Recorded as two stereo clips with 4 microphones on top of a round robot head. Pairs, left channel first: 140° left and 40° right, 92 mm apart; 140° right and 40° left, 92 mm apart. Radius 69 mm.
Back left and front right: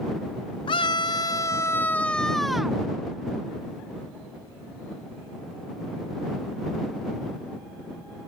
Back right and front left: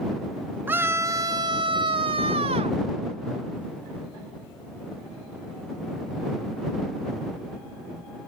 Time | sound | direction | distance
0.7 | a scream | 110° left | ?